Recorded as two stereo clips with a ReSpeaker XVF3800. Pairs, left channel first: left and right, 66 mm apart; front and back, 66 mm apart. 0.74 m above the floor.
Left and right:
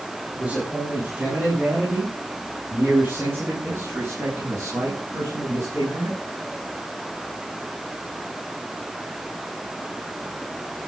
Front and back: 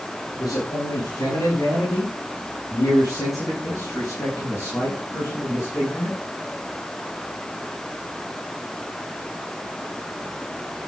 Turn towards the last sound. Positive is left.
turn(degrees=-50)